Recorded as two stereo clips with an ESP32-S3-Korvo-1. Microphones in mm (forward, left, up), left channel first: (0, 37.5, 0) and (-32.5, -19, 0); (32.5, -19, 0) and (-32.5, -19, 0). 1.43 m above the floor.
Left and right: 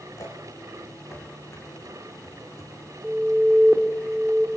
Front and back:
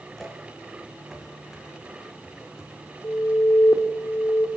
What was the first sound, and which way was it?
Footsteps, 80° left.